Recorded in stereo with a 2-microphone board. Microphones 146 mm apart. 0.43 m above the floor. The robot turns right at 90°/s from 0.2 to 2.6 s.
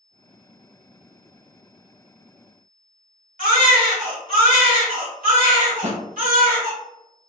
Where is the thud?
55° right (ahead or behind), 1.0 m.